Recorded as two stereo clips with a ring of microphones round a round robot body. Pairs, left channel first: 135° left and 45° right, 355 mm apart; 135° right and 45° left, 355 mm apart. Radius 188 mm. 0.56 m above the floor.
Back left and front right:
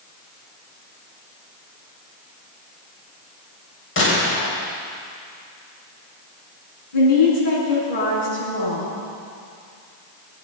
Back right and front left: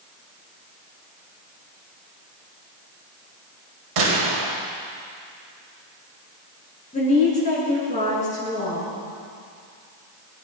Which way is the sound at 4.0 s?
75° left.